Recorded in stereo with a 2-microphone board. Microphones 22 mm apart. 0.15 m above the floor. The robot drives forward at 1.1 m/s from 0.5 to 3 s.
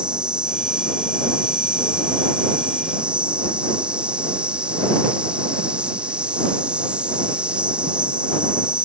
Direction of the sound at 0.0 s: 50° right (ahead or behind).